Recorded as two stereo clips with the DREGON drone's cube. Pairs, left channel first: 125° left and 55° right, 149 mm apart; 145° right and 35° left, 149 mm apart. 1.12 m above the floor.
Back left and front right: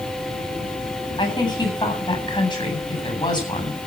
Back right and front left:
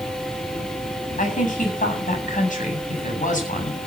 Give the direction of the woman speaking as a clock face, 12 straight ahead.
6 o'clock.